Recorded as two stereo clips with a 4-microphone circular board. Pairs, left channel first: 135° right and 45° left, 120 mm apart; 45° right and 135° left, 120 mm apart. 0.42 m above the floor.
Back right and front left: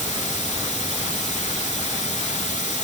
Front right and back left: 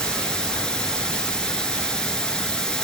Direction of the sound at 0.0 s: 125° right.